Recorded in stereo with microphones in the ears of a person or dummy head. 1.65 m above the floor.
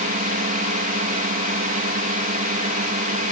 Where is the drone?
45° right (ahead or behind).